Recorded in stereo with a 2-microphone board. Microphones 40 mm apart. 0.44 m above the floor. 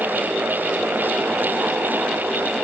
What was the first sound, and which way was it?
Only background noise.